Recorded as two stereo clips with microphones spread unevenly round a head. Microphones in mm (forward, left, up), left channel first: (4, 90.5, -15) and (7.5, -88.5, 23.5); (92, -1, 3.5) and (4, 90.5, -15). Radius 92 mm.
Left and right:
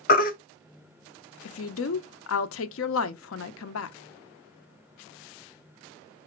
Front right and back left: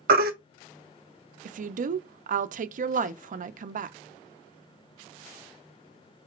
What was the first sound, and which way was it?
A baby crying, 140° left.